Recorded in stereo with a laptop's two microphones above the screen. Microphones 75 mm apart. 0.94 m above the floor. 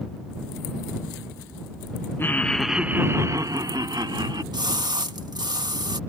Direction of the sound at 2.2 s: 30° left (ahead or behind).